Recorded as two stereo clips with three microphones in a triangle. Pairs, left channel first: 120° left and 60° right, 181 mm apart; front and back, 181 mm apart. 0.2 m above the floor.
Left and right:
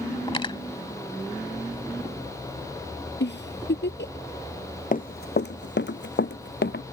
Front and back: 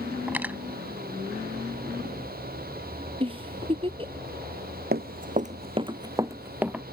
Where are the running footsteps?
160° left; by 6.8 s 95° left.